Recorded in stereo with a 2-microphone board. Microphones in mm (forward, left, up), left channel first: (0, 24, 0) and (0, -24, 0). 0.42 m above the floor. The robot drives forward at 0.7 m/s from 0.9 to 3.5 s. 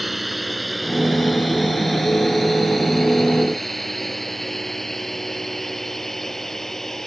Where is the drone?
5° right (ahead or behind); by 7.1 s 5° left (ahead or behind).